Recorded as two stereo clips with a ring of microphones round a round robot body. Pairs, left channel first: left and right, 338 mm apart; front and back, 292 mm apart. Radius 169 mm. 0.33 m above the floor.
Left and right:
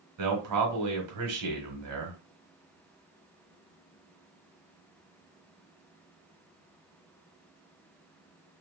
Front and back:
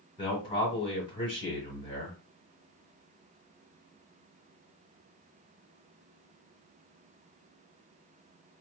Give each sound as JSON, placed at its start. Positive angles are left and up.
{"t": 0.2, "sound": "a man speaking", "azimuth_deg": -75, "distance_m": 1.6}